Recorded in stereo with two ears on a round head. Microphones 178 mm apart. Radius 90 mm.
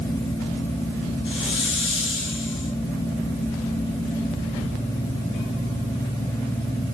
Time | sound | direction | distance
1.2 | a hiss | 60° left (ahead or behind) | 5 m